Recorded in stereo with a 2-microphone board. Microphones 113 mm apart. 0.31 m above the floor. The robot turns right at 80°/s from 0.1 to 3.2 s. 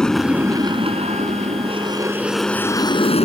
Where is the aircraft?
5° left (ahead or behind); by 3.2 s 55° left (ahead or behind).